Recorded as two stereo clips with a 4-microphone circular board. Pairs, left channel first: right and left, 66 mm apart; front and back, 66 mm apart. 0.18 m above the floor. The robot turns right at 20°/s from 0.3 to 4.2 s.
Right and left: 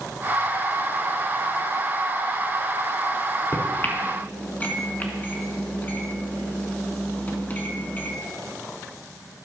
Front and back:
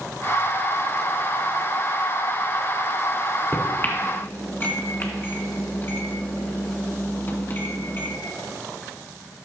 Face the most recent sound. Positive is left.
turn(degrees=-40)